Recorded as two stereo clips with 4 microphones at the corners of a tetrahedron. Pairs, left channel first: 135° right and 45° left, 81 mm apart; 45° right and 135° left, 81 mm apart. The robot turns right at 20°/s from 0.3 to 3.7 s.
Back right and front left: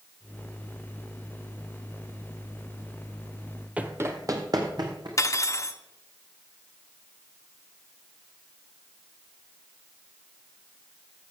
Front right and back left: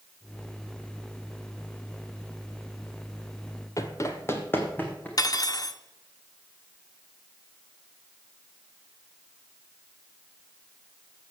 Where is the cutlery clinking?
85° right, 0.7 m.